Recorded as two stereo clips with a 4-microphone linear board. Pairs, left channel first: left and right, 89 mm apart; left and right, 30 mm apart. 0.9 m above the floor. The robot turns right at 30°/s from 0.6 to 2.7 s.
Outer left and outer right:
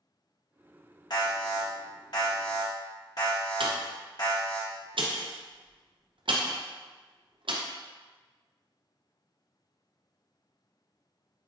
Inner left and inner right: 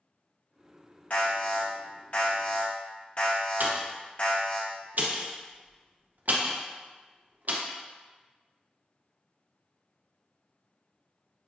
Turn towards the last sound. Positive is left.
turn(degrees=-70)  # may be behind; listen again after turning